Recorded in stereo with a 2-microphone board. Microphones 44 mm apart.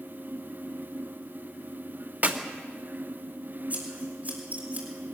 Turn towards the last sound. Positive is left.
turn(degrees=-35)  # may be behind; listen again after turning